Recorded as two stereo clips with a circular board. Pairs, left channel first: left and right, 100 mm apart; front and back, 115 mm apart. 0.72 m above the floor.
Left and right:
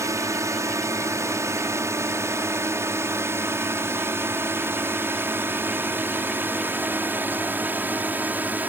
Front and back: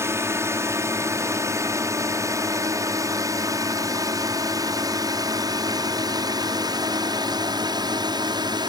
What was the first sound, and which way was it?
A drone, 125° right.